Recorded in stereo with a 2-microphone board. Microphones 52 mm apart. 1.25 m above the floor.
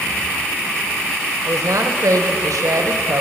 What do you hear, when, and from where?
1.5 s a woman speaking: 75° right (ahead or behind), 1.0 m